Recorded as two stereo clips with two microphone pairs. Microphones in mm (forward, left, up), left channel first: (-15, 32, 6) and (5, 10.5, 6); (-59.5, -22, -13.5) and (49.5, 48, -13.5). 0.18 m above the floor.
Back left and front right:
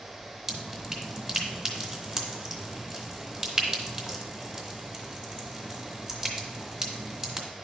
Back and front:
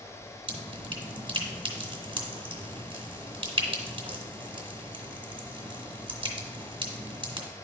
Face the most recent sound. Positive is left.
turn(degrees=15)